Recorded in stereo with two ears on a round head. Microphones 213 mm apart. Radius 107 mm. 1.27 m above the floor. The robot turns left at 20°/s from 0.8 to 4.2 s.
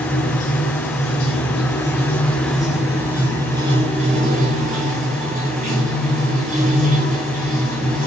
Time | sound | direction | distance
0.0 | running water | 35° left | 3 m